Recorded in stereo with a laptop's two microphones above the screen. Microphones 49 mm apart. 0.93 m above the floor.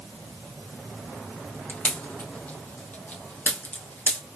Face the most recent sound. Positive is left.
turn(degrees=40)  # may be behind; listen again after turning